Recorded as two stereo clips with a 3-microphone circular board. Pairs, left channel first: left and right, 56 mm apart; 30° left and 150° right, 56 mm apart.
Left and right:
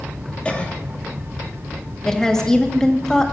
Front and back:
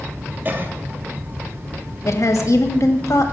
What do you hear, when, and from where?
0.5 s a cough: 160° left, 2 m
2.0 s a woman speaking: 10° left, 1.7 m